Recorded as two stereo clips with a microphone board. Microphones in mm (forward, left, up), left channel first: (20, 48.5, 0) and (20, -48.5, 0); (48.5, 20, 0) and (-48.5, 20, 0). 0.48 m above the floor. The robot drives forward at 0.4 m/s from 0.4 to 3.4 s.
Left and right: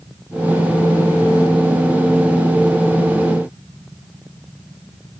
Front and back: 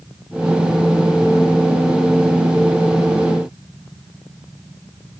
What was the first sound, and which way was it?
Only background noise.